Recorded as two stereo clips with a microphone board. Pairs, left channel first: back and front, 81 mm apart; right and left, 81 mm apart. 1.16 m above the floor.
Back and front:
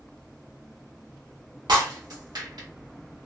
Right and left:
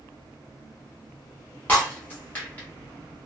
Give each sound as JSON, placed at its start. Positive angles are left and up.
{"t": 1.7, "sound": "breaking glass", "azimuth_deg": -20, "distance_m": 1.5}